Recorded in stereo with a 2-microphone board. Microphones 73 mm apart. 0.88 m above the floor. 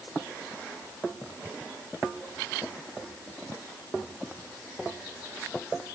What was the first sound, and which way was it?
Only background noise.